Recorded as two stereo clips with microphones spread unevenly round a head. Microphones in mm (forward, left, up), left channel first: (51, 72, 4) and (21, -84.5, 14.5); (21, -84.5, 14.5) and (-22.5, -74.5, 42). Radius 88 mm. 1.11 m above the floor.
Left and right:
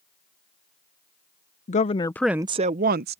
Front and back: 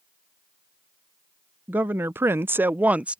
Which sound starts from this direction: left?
A woman speaking, at 1.7 s.